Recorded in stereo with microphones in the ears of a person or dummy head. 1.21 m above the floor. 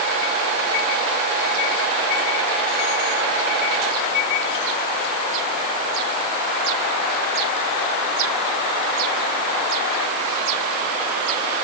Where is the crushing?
No crushing in this recording.